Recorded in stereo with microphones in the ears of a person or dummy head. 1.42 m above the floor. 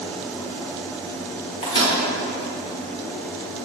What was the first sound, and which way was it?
A microwave, 25° left (ahead or behind).